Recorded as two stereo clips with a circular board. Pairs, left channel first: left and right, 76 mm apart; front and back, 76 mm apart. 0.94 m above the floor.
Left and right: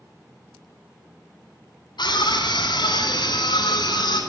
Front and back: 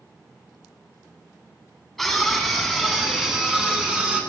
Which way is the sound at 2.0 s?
90° left.